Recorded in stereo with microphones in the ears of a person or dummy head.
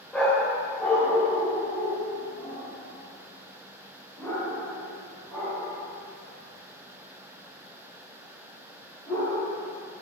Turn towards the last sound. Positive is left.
turn(degrees=15)  # may be behind; listen again after turning